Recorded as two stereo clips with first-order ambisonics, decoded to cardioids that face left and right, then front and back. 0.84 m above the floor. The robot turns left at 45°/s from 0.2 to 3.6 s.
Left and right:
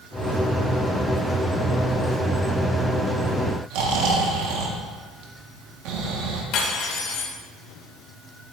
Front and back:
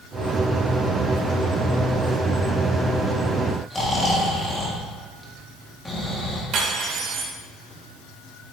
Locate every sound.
3.7 s snoring: 80° right, 1.5 m
6.5 s cutlery clinking: 130° left, 1.6 m